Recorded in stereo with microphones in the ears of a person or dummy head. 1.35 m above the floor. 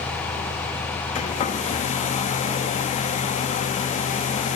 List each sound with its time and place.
1.1 s a hair dryer: 35° left (ahead or behind), 1.6 m